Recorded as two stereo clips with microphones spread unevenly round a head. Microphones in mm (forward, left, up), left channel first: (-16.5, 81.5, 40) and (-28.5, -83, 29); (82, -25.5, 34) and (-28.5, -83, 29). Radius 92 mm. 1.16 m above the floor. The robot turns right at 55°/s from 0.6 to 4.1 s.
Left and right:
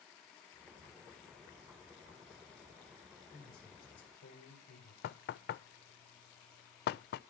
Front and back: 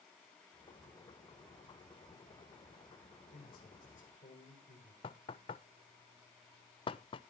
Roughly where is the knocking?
Left.